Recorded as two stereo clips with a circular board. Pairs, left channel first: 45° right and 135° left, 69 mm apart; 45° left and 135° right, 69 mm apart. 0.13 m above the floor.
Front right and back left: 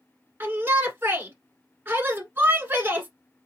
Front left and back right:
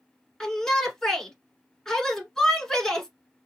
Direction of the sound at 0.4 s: 120° left.